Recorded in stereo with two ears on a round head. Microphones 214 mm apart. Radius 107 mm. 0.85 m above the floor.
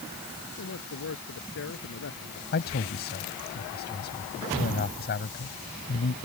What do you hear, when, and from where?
0.5 s a man speaking: 55° left (ahead or behind)
2.5 s a man speaking: 45° left (ahead or behind)